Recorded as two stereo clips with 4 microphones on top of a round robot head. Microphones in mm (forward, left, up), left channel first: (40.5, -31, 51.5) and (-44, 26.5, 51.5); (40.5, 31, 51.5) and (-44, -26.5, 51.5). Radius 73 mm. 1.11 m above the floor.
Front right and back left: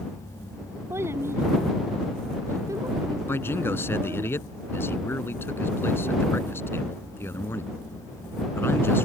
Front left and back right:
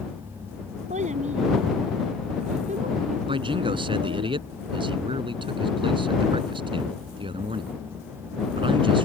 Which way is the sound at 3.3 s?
105° right.